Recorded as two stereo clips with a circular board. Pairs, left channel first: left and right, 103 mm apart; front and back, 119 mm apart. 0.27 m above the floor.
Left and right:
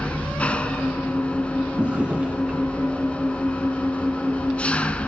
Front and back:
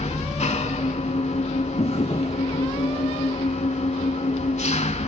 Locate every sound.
0.0 s an engine running: 15° left, 0.7 m
1.8 s a drawer: 15° right, 1.7 m